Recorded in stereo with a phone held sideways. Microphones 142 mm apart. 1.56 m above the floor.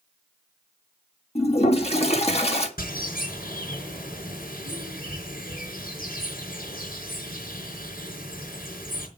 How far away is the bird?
About 4.5 m.